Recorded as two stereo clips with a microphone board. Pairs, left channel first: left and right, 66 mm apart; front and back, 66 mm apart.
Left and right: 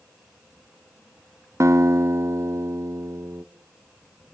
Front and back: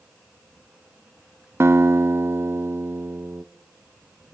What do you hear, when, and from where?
1.6 s a guitar: 125° right, 0.6 m